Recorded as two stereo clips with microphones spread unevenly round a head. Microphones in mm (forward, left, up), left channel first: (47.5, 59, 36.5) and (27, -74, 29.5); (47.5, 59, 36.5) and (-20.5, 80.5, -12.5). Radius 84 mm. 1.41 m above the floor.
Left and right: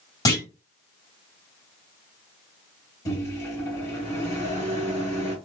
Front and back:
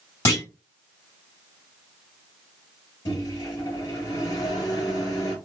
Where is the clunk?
15° left, 2 m.